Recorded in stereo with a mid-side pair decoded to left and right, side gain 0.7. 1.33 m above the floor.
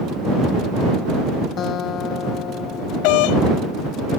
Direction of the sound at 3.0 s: 70° left.